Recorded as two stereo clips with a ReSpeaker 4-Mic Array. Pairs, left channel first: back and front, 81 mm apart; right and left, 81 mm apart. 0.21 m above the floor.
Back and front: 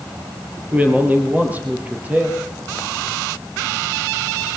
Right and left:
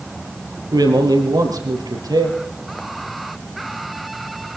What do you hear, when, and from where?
0.7 s a man speaking: 70° left, 4 m